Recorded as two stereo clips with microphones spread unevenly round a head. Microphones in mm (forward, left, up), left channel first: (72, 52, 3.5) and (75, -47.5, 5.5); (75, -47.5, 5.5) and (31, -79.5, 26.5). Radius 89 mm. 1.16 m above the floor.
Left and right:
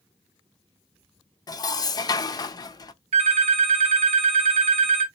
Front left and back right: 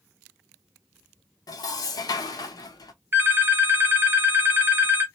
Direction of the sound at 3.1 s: 110° right.